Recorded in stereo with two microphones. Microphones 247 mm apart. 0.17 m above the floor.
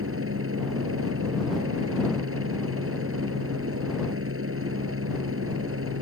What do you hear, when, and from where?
0.0 s a helicopter: 60° right (ahead or behind)